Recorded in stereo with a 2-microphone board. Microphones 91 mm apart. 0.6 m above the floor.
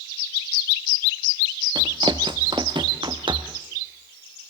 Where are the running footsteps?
60° right (ahead or behind), 1.1 m; by 3.6 s 65° right (ahead or behind), 2 m.